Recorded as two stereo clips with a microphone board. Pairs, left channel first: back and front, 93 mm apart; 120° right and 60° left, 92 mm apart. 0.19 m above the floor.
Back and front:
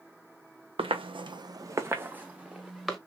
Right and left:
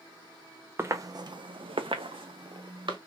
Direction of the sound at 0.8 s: Straight ahead.